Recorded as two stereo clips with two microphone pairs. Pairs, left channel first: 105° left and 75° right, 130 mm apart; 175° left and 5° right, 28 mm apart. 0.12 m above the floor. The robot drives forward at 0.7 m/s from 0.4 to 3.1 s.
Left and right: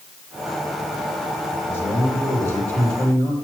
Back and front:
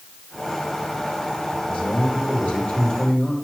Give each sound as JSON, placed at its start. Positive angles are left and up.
{"t": 1.7, "sound": "a man speaking", "azimuth_deg": 175, "distance_m": 3.5}